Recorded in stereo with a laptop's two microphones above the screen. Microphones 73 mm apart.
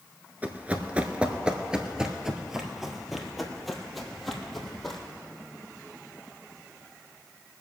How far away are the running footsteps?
About 1.0 m.